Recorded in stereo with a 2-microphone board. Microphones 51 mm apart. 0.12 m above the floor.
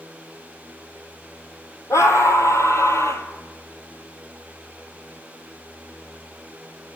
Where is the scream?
70° left (ahead or behind), 3.5 m; by 3.3 s 65° left (ahead or behind), 2.5 m.